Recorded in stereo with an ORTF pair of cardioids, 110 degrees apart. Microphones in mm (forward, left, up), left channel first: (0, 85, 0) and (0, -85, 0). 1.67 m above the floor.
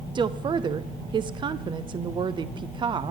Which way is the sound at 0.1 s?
30° right.